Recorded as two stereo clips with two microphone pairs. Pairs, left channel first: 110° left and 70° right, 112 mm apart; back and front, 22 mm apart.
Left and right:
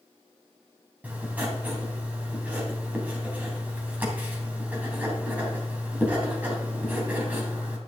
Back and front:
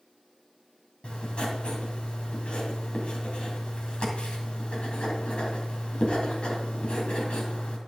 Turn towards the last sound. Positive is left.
turn(degrees=-145)